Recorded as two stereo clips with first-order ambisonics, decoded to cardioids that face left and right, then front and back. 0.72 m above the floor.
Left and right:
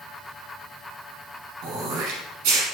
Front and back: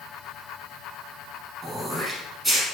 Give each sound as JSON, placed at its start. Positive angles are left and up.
{"t": 1.6, "sound": "throat clearing", "azimuth_deg": -95, "distance_m": 1.4}